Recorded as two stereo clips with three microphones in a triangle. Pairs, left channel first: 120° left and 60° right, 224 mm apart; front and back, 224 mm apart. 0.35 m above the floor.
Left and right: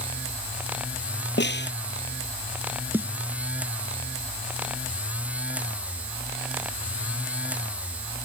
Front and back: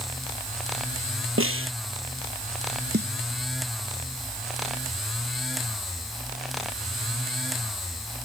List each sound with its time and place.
1.4 s a snare drum: 160° left
2.9 s a snare drum: 140° right